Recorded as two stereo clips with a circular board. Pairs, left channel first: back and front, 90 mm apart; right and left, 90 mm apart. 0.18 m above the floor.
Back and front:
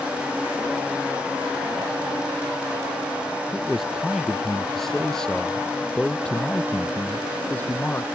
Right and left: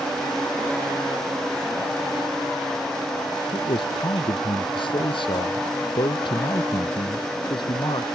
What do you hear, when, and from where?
3.5 s a man speaking: 85° right; by 8.1 s 110° right